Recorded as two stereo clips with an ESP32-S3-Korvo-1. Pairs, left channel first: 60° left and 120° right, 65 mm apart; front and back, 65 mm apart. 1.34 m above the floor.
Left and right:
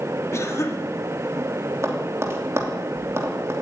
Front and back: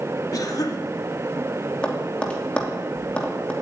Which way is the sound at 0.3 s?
20° left.